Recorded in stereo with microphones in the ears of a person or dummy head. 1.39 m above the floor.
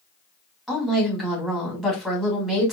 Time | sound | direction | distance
0.7 | a woman speaking | centre (ahead or behind) | 2 m